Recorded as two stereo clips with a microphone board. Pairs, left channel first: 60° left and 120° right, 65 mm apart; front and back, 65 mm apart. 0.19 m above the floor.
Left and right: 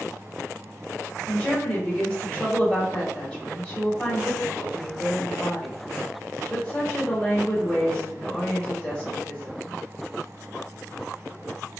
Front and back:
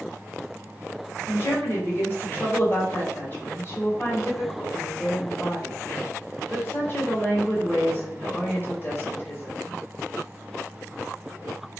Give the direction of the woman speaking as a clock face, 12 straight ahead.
12 o'clock.